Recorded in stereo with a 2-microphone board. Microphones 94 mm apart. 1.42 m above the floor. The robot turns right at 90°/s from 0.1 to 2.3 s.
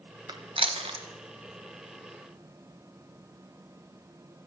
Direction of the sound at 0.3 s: 50° right (ahead or behind).